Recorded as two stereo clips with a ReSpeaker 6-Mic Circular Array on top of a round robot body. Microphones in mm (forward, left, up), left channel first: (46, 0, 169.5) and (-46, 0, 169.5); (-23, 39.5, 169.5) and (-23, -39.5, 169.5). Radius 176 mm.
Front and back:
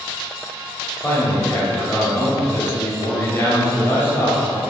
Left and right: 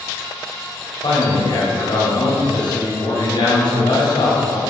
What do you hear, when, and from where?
1.0 s a man speaking: 65° left, 3 m